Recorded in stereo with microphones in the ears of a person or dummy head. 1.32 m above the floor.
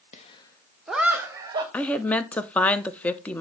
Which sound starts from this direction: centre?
A woman speaking, at 1.7 s.